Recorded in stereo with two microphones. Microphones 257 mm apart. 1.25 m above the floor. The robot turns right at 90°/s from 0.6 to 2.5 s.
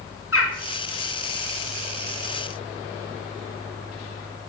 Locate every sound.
0.3 s a bird: 60° left (ahead or behind), 2.5 m